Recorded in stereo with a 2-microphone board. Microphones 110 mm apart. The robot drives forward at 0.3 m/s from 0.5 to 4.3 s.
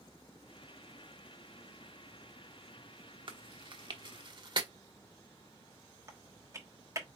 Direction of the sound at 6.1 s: 30° right (ahead or behind).